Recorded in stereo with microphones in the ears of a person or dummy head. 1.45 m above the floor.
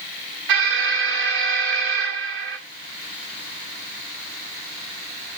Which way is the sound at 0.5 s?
65° right (ahead or behind).